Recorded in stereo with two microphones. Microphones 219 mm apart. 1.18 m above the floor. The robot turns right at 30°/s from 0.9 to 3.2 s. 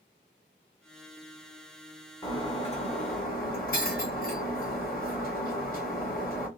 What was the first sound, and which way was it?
Breaking glass, 15° left (ahead or behind).